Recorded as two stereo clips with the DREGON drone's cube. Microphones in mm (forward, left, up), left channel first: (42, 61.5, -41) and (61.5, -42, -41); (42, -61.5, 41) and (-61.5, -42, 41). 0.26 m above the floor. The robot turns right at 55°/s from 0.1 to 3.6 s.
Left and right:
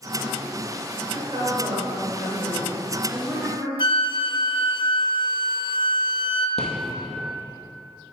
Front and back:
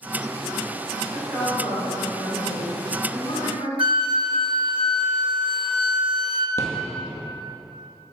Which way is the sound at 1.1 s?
105° right.